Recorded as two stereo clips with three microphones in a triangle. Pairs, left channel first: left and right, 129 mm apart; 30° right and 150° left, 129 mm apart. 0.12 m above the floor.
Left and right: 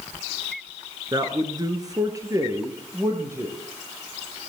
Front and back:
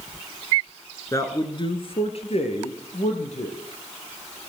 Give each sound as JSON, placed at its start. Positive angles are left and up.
{"t": 1.1, "sound": "a man speaking", "azimuth_deg": -70, "distance_m": 1.9}